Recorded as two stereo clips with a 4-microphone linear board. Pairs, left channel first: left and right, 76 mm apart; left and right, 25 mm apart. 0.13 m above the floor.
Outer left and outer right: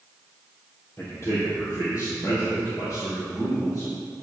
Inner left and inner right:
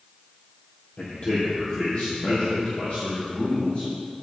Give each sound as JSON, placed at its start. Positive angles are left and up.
{"t": 1.0, "sound": "a man speaking", "side_deg": 40, "distance_m": 3.0}